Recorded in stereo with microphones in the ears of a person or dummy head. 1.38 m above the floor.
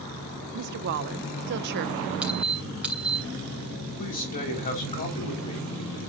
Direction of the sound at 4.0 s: 40° left (ahead or behind).